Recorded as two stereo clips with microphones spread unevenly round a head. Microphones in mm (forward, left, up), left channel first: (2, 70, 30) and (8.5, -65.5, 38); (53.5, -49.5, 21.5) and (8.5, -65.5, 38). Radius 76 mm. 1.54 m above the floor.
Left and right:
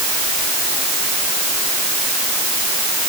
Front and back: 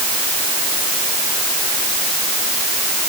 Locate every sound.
Only background noise.